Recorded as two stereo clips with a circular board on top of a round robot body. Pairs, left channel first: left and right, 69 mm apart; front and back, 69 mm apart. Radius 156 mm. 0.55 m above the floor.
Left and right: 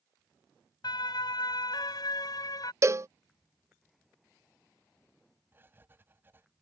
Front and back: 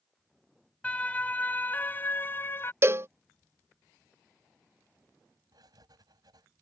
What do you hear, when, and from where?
0.8 s a siren: 75° left; by 2.7 s 60° left
2.8 s a cowbell: 130° right
5.5 s writing: 150° right